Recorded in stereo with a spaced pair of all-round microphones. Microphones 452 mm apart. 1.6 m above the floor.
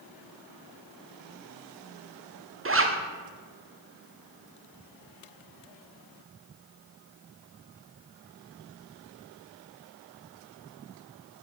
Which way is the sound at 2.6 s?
30° right (ahead or behind).